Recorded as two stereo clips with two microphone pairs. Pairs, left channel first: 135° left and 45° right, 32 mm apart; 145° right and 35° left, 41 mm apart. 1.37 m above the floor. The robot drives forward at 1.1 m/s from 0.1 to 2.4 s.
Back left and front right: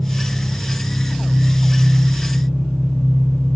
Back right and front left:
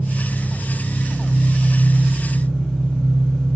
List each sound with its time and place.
0.0 s an engine running: 105° left, 2.5 m; by 3.6 s 145° left, 4 m